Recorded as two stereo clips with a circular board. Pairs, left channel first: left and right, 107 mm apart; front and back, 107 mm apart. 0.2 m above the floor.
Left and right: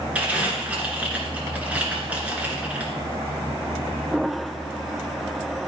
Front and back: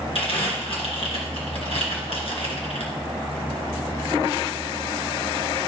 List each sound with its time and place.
0.1 s crumpling: 15° right, 2.5 m